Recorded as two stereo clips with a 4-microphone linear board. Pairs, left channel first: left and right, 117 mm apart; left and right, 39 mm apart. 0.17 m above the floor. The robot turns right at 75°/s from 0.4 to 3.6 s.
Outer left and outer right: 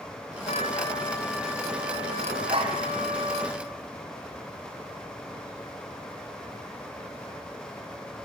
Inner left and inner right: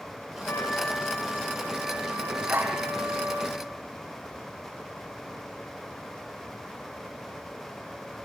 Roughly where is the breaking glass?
I don't hear breaking glass.